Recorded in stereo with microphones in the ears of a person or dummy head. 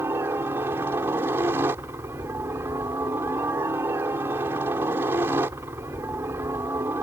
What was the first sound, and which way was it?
A helicopter, 10° right (ahead or behind).